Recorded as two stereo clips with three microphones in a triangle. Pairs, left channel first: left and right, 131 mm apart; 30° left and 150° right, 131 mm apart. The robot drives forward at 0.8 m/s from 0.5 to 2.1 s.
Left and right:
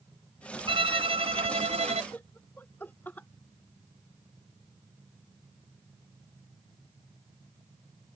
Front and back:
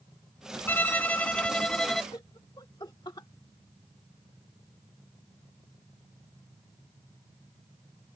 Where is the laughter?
30° left.